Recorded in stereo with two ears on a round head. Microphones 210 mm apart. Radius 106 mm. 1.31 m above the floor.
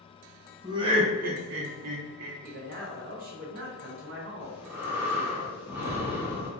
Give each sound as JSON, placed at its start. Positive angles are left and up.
{"t": 0.6, "sound": "laughter", "side_deg": -15, "distance_m": 1.0}
{"t": 2.4, "sound": "a man speaking", "side_deg": -35, "distance_m": 0.7}
{"t": 4.4, "sound": "breathing", "side_deg": -10, "distance_m": 0.7}